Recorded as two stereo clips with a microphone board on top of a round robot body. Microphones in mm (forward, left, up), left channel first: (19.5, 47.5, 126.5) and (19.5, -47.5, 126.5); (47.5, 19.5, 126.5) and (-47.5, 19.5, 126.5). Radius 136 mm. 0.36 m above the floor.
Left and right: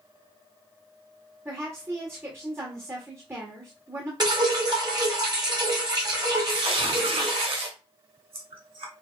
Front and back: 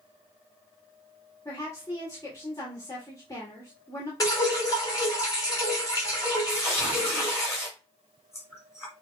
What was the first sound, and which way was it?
A woman speaking, 40° right.